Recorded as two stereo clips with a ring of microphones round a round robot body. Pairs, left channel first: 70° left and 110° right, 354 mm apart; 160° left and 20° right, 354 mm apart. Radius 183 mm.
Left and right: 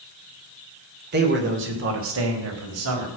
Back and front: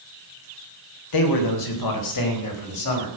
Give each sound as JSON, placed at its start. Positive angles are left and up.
{"t": 1.1, "sound": "a man speaking", "azimuth_deg": -175, "distance_m": 3.5}